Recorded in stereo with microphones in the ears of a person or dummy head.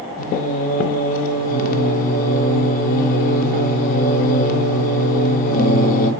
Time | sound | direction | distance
0.2 | singing | 45° left (ahead or behind) | 0.6 m